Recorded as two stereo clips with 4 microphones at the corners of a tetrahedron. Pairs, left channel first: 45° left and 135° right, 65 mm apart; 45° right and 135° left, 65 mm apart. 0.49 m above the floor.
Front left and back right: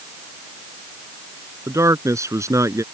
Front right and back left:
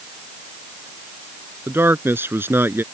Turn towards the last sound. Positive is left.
turn(degrees=-175)